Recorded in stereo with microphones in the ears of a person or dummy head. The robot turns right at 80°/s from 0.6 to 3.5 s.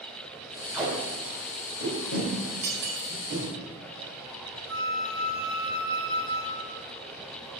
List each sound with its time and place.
0.7 s tape being pulled: 5° right (ahead or behind), 3 m; by 3.5 s 30° right (ahead or behind), 3 m
2.6 s cutlery clinking: 40° right (ahead or behind), 1.5 m; by 3.2 s 55° right (ahead or behind), 1.5 m
4.7 s a flute: 85° right, 1.2 m